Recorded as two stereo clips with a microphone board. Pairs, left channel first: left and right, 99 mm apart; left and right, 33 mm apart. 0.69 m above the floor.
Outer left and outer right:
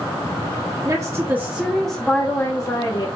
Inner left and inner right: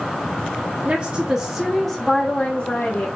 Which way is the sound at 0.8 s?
35° right (ahead or behind).